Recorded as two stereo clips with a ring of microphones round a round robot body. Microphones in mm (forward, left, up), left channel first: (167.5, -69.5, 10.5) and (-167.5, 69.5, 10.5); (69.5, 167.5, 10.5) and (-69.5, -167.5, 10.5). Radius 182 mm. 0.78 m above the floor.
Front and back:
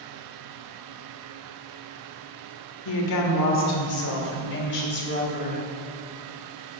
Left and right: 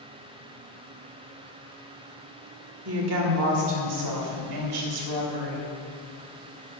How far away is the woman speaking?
About 2 m.